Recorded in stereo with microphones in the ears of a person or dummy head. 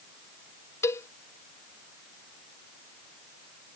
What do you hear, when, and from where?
0.8 s a cowbell: 15° left (ahead or behind)